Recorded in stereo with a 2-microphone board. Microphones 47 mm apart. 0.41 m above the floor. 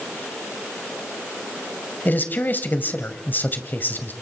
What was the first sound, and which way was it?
A man speaking, 40° left (ahead or behind).